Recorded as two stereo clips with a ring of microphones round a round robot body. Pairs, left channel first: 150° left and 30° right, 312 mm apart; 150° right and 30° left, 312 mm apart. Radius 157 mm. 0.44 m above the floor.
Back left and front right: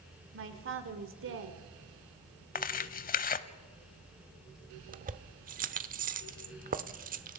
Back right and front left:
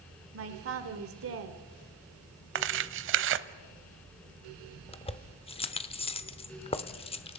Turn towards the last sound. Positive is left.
turn(degrees=-85)